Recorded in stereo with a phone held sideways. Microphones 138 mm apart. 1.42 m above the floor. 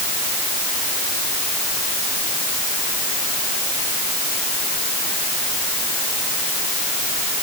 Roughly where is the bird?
No bird in this recording.